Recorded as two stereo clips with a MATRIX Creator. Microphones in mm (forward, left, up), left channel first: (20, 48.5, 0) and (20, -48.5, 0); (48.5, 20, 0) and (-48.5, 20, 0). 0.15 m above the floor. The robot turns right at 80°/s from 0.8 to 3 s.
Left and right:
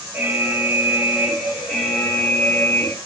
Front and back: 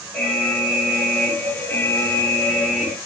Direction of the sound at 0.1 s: 60° right.